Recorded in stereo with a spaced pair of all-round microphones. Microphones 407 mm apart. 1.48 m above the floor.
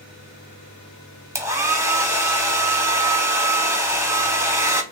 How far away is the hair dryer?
About 1.2 m.